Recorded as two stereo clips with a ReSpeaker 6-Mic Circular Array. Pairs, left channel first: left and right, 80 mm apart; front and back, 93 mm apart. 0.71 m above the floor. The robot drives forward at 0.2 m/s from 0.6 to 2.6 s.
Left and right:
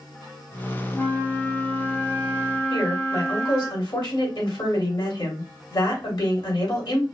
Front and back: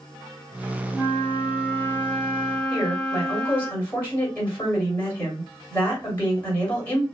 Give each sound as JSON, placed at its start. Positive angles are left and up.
{"t": 0.9, "sound": "a flute", "azimuth_deg": 45, "distance_m": 1.0}
{"t": 2.7, "sound": "a woman speaking", "azimuth_deg": 70, "distance_m": 3.0}